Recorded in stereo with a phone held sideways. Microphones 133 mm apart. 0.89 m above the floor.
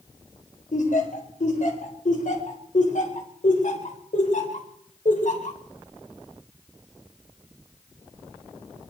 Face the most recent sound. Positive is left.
turn(degrees=70)  # may be behind; listen again after turning